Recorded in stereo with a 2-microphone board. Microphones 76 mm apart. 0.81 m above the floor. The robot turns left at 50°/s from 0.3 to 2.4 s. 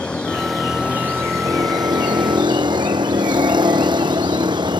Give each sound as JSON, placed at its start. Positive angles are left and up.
{"t": 0.0, "sound": "a vehicle", "azimuth_deg": 15}